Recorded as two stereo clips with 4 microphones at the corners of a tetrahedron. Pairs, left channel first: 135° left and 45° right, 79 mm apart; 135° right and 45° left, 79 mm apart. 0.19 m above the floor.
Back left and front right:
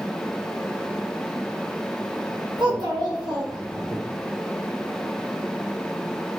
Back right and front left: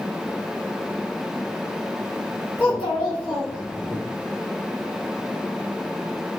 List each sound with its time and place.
2.6 s a child speaking: 55° right, 2.5 m; by 4.0 s 25° right, 1.7 m